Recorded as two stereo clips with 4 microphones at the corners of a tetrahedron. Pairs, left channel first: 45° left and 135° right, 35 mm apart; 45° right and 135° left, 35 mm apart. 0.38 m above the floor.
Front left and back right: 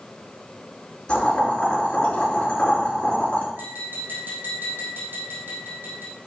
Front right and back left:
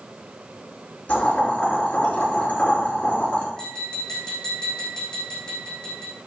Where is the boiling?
20° right, 5 m.